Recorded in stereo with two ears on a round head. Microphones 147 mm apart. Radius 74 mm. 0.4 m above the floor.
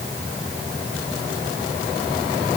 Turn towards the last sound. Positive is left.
No sound to turn to.